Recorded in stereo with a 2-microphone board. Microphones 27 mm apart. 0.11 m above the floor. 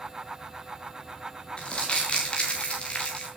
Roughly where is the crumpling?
Left.